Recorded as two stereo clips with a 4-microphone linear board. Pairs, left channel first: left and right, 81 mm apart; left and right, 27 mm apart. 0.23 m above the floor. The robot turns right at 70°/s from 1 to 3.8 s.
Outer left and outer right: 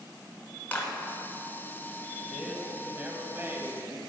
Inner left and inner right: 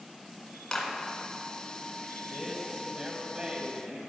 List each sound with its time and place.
0.7 s a clap: 25° left (ahead or behind), 1.4 m
2.3 s a man speaking: centre (ahead or behind), 1.0 m; by 4.0 s 30° right (ahead or behind), 1.0 m